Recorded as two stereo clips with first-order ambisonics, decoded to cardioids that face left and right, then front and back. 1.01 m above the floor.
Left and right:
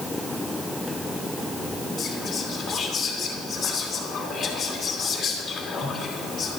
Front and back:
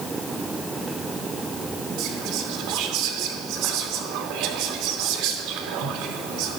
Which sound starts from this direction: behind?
Whispering, at 2.0 s.